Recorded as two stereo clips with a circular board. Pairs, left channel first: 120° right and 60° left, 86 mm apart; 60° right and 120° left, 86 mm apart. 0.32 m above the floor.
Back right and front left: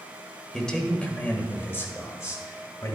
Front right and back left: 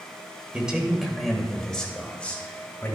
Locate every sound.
0.5 s a man speaking: 175° left, 1.5 m; by 3.0 s 115° right, 2 m